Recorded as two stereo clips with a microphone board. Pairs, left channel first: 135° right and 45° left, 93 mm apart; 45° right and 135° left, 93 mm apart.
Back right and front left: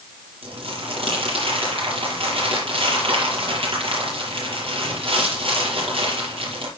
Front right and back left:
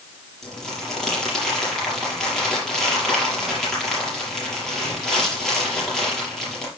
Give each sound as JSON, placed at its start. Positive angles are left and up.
{"t": 0.4, "sound": "crumpling", "azimuth_deg": 40, "distance_m": 6.0}